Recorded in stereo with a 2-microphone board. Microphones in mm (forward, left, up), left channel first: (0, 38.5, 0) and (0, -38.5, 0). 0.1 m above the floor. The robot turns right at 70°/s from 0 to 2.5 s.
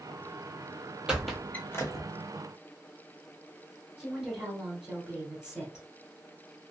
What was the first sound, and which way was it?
A squeak, 10° right (ahead or behind).